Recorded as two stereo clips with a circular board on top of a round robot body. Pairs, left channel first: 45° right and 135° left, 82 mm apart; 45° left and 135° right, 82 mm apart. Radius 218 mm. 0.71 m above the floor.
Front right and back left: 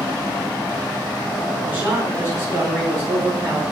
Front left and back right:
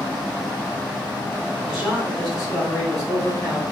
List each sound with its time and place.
1.7 s a man speaking: 65° left, 1.9 m; by 3.6 s 85° left, 3 m